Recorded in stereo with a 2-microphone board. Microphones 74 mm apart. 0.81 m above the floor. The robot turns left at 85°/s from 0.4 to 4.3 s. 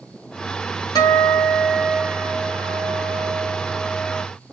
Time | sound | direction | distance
0.9 | a guitar | 70° left | 1.2 m